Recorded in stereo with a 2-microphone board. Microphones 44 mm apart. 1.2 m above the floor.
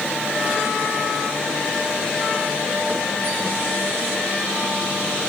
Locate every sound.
Only background noise.